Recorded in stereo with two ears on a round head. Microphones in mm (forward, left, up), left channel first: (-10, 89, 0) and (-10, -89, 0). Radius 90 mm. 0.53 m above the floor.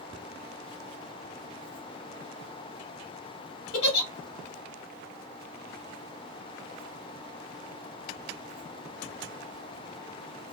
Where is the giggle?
55° left (ahead or behind), 1.5 m.